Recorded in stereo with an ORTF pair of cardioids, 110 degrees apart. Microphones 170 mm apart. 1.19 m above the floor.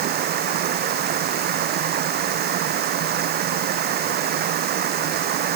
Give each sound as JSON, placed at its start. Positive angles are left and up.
{"t": 0.0, "sound": "running water", "azimuth_deg": -70}